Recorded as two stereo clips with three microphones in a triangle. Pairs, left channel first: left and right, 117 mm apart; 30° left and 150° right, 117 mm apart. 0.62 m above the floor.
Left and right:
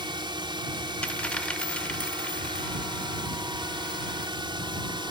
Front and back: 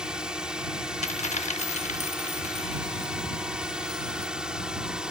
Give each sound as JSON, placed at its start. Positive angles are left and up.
{"t": 0.0, "sound": "a drone", "azimuth_deg": -70}
{"t": 1.0, "sound": "a dropped coin", "azimuth_deg": 10}